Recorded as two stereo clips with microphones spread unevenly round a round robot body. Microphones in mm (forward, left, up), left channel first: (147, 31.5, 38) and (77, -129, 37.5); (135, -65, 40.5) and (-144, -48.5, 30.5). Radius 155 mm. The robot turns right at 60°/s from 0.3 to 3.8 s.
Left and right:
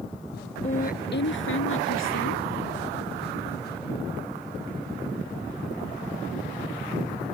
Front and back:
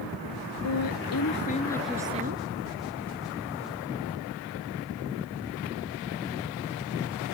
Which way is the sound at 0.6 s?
15° left.